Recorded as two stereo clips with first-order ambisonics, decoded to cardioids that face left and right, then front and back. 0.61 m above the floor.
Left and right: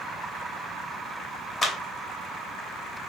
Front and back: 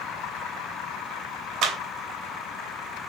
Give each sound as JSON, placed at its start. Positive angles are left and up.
{"t": 1.6, "sound": "a clap", "azimuth_deg": 160, "distance_m": 0.7}